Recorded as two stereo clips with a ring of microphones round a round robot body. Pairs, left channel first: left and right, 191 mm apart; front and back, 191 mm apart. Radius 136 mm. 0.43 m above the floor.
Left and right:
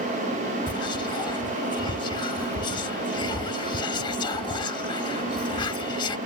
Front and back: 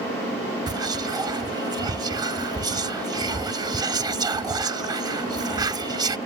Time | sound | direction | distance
0.7 | whispering | 130° left | ?